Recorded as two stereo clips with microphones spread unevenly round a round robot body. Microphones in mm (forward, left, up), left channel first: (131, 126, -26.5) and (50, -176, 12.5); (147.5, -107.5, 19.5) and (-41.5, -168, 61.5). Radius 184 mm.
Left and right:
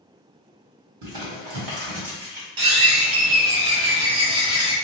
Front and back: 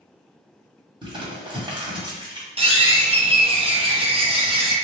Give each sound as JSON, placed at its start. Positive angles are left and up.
{"t": 1.0, "sound": "crumpling", "azimuth_deg": -90, "distance_m": 1.9}
{"t": 2.6, "sound": "a bird", "azimuth_deg": -95, "distance_m": 1.1}